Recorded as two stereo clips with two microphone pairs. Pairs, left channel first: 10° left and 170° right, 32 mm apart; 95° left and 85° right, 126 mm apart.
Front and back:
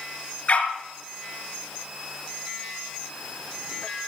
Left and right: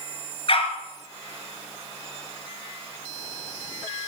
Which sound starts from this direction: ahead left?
A dog barking, at 0.5 s.